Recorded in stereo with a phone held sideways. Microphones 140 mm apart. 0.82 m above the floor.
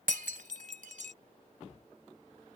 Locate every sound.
0.1 s breaking glass: 70° right (ahead or behind)